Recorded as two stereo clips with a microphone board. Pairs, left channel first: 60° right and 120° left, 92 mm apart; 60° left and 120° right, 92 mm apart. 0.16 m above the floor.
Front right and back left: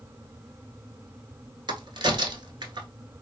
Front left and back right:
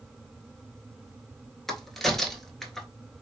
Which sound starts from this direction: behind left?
A crack, at 1.7 s.